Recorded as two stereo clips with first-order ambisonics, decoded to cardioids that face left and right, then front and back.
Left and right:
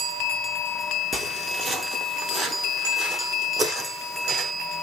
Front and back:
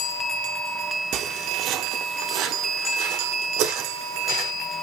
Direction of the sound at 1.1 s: 165° right.